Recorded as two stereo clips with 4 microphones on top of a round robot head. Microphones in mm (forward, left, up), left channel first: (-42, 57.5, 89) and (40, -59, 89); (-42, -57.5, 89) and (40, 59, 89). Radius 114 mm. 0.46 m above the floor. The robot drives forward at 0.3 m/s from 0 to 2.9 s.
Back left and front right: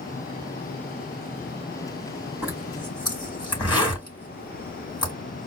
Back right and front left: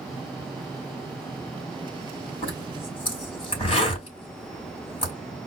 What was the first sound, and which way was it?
A zipper, 175° right.